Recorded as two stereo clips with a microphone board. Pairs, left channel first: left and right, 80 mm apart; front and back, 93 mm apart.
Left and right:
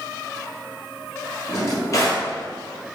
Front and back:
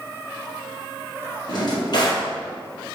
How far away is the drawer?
About 1.9 m.